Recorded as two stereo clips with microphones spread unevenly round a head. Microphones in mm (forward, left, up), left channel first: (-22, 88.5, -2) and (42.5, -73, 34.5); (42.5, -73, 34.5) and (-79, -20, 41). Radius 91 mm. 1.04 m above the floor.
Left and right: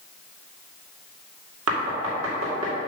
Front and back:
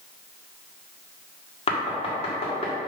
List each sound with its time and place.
1.7 s knocking: 65° right, 2 m